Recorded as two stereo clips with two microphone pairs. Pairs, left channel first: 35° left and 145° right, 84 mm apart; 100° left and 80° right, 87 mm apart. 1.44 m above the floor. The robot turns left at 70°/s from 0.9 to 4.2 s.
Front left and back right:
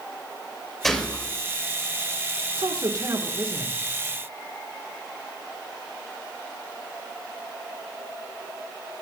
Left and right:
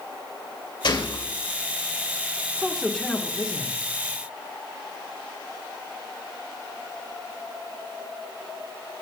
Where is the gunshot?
125° left, 2.5 m; by 1.3 s 95° left, 2.5 m.